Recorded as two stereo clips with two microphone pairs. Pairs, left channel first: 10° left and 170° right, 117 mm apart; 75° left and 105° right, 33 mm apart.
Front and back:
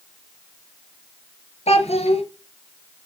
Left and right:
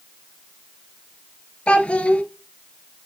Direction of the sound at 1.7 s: 20° left.